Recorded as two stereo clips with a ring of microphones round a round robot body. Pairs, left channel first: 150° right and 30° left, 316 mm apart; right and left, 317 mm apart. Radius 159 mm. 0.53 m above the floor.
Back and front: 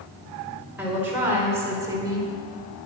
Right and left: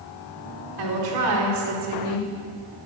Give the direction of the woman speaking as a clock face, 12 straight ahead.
8 o'clock.